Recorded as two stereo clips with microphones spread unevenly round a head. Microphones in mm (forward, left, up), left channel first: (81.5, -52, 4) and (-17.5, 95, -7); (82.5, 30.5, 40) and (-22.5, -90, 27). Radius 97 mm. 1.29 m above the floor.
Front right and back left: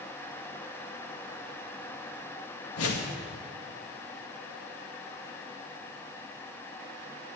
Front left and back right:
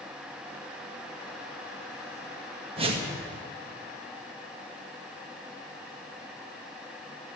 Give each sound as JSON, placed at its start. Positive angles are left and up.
{"t": 2.8, "sound": "a whoosh", "azimuth_deg": -75, "distance_m": 2.0}